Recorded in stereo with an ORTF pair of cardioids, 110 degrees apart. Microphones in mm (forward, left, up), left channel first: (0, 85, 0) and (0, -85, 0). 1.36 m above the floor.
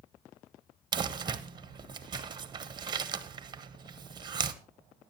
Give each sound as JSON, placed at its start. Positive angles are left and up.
{"t": 0.9, "sound": "crumpling", "azimuth_deg": -25, "distance_m": 1.0}